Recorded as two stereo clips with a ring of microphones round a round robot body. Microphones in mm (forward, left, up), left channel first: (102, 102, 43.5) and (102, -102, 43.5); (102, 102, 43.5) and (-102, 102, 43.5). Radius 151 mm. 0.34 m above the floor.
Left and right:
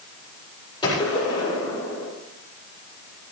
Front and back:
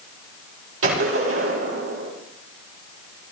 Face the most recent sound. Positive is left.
turn(degrees=165)